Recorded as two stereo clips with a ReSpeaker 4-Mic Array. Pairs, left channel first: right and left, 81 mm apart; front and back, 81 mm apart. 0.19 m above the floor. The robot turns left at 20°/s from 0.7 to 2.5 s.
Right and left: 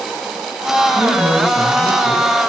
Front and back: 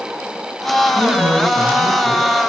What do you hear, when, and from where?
0.9 s a man speaking: 15° left, 2.5 m; by 2.3 s 10° right, 2.5 m